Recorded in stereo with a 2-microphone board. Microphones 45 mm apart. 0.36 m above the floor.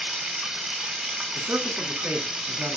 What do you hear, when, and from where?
0.0 s running water: 15° right (ahead or behind), 1.2 m
1.4 s a man speaking: 50° right (ahead or behind), 3.5 m